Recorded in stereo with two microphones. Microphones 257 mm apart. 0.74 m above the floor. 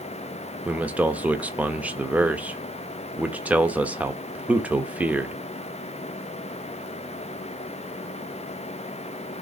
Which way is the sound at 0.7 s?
5° right (ahead or behind).